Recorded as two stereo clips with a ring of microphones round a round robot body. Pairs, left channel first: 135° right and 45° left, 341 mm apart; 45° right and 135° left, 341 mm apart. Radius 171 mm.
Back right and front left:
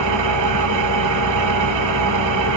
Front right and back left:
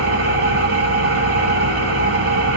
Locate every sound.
0.0 s an engine running: 80° left, 0.9 m